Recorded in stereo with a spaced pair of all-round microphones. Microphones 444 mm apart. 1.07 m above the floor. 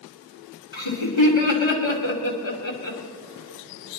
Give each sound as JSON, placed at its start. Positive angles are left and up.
{"t": 0.7, "sound": "laughter", "side_deg": 85, "distance_m": 2.5}